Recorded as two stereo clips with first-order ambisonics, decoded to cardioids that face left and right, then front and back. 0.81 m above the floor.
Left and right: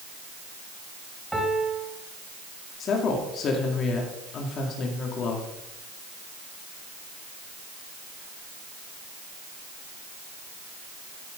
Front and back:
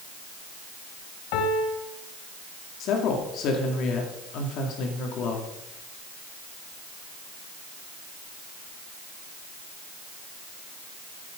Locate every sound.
1.3 s a piano: 5° right, 1.8 m
2.8 s a woman speaking: 35° left, 2 m